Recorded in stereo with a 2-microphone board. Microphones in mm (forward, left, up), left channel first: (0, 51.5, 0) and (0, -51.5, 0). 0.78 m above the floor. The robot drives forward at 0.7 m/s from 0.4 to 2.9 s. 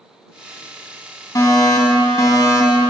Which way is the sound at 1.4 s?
40° left (ahead or behind).